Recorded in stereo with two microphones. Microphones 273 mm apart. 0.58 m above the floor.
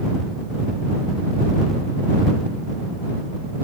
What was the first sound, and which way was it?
Only background noise.